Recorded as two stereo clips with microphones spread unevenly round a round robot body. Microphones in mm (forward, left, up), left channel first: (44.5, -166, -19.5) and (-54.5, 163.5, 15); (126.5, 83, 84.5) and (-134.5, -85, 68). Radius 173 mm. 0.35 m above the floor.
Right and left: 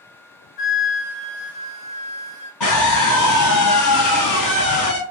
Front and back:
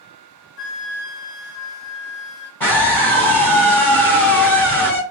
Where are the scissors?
I don't hear scissors.